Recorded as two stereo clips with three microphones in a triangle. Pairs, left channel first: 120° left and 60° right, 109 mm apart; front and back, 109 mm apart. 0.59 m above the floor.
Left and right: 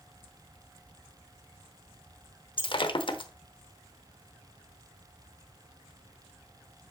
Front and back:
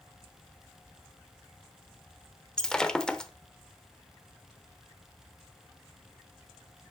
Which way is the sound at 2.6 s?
85° left.